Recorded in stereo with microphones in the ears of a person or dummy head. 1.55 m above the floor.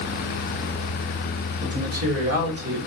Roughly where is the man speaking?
Right.